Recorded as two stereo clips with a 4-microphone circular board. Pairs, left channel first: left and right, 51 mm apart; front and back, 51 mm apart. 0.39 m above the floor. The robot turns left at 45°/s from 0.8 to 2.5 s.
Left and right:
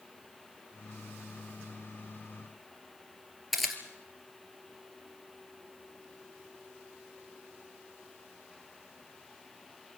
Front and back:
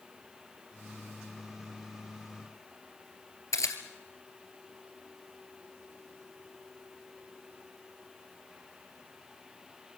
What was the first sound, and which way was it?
A camera shutter, 5° right.